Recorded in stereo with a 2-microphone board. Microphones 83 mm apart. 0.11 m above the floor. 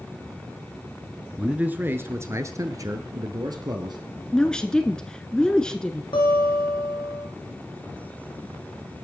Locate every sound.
1.4 s a man speaking: 15° right (ahead or behind), 1.3 m; by 4.0 s 60° right (ahead or behind), 2.5 m
4.3 s a woman speaking: 10° left (ahead or behind), 1.1 m
6.1 s a guitar: 70° left (ahead or behind), 4 m